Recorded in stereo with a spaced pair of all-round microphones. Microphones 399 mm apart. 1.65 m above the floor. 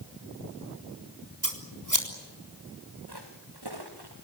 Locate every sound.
1.4 s scissors: 50° right (ahead or behind), 4 m
3.1 s footsteps: 75° right (ahead or behind), 8 m